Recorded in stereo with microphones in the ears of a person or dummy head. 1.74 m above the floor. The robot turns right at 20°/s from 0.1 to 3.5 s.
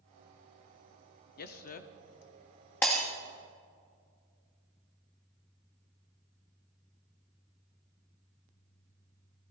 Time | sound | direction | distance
1.4 | a man speaking | 50° left (ahead or behind) | 0.7 m
2.8 | breaking glass | 5° left (ahead or behind) | 1.2 m